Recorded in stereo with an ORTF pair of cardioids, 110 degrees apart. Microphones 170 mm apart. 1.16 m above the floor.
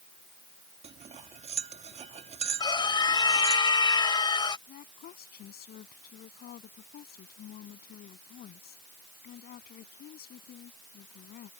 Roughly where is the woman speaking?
Ahead left.